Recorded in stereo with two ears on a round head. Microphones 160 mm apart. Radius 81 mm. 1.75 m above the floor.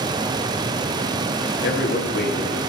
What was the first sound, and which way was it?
A man speaking, 65° left (ahead or behind).